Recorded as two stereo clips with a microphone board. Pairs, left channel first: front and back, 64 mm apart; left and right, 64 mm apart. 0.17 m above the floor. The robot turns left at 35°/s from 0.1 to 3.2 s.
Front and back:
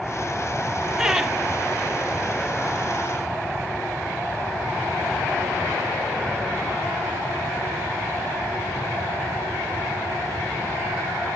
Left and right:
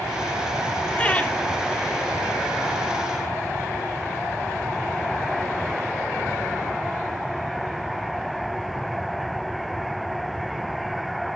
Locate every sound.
1.0 s laughter: 115° left, 1.0 m; by 1.4 s 100° left, 1.0 m